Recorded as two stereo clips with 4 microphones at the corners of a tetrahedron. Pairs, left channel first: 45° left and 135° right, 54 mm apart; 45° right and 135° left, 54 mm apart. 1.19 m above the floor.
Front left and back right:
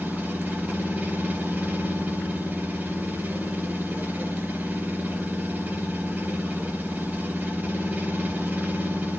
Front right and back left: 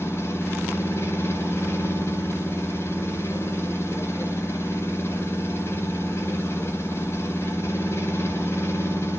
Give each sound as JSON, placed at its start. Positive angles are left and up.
{"t": 0.0, "sound": "an engine running", "azimuth_deg": -80, "distance_m": 4.0}